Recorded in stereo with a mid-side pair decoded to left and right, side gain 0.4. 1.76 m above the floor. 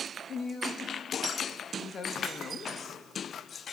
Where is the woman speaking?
50° left, 3 m.